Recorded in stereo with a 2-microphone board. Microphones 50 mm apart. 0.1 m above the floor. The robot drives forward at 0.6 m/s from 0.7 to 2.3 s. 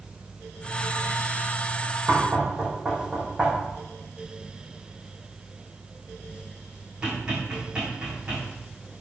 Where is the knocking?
15° right (ahead or behind), 4 m.